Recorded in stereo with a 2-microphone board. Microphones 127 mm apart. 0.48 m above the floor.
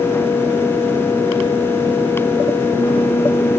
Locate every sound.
Only background noise.